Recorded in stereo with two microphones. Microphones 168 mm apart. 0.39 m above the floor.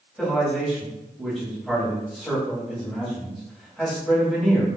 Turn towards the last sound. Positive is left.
turn(degrees=0)  # may be behind; listen again after turning